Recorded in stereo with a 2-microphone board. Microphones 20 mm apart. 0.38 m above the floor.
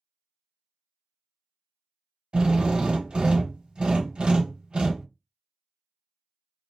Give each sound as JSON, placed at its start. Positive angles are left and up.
{"t": 2.3, "sound": "a drill", "side_deg": -60, "distance_m": 1.0}